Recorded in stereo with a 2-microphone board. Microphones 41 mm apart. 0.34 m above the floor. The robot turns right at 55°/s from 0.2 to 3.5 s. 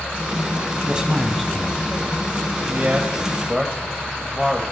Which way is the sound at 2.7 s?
40° right (ahead or behind).